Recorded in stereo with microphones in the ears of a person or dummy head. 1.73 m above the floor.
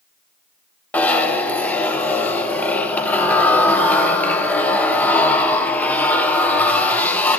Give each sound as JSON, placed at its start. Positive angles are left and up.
{"t": 0.9, "sound": "a zipper", "side_deg": 15, "distance_m": 1.0}